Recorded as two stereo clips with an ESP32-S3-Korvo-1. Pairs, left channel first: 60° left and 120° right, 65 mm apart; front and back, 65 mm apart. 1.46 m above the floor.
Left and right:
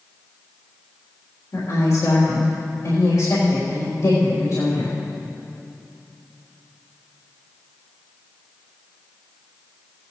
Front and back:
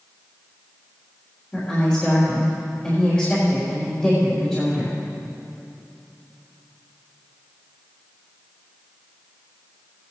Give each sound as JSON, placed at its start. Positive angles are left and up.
{"t": 1.5, "sound": "a woman speaking", "azimuth_deg": 70, "distance_m": 3.5}